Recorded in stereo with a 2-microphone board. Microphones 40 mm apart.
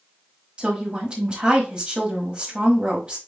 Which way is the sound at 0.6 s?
25° right (ahead or behind).